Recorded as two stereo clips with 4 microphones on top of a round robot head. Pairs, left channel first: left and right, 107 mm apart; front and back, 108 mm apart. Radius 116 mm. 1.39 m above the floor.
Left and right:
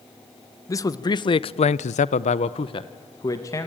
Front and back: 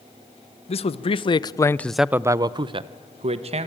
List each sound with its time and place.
0.7 s a man speaking: 30° left, 1.2 m; by 3.7 s 160° left, 1.6 m